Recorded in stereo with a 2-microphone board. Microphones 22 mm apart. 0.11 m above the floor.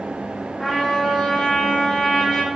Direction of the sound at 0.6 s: 20° left (ahead or behind).